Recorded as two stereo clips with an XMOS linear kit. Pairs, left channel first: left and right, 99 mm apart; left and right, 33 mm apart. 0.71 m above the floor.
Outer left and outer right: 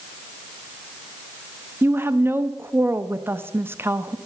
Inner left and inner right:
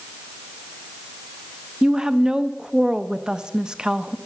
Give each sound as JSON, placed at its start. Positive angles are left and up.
{"t": 1.8, "sound": "a woman speaking", "side_deg": -20, "distance_m": 0.6}